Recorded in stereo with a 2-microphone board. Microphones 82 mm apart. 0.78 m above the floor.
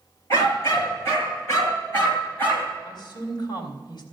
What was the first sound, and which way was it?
A dog barking, 40° left (ahead or behind).